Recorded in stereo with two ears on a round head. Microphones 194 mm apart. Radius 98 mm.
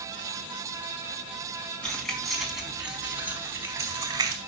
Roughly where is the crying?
No crying in this recording.